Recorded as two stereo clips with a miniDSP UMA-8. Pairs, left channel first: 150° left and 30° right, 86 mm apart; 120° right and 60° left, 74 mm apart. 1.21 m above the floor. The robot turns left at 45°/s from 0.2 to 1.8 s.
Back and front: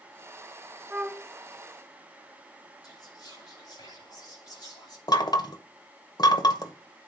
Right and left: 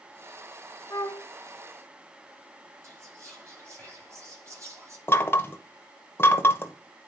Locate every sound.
0.9 s a flute: 100° right, 0.5 m; by 1.3 s 115° right, 0.5 m
2.8 s whispering: 110° left, 6.5 m
5.1 s knocking: straight behind, 1.0 m